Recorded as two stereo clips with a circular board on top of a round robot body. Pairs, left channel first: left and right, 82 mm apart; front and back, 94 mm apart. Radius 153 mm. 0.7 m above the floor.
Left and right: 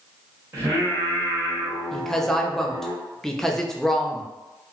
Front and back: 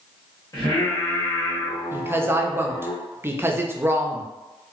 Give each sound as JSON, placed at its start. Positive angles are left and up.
{"t": 0.5, "sound": "singing", "azimuth_deg": -40, "distance_m": 1.7}
{"t": 1.9, "sound": "a woman speaking", "azimuth_deg": 165, "distance_m": 0.6}